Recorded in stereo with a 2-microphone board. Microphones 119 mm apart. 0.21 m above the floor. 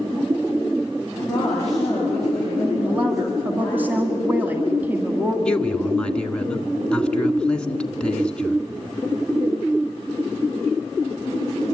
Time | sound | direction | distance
1.3 | a woman speaking | 5° left (ahead or behind) | 7.5 m
2.8 | a woman speaking | 15° right (ahead or behind) | 1.9 m
5.5 | a man speaking | 10° left (ahead or behind) | 1.7 m